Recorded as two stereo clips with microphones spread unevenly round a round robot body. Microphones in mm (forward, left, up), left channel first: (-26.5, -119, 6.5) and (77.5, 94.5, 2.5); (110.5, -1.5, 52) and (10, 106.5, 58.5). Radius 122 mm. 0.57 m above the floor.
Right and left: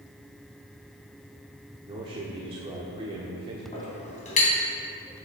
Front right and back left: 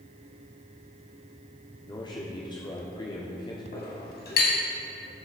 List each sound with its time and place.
1.9 s a man speaking: 5° left, 1.4 m
3.7 s a clink: 55° right, 3 m